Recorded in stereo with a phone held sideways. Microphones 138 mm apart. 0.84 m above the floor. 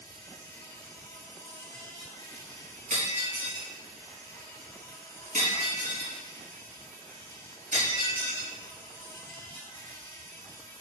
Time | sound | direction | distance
0.0 | an insect | 35° left (ahead or behind) | 3.5 m
2.9 | breaking glass | 65° right (ahead or behind) | 4 m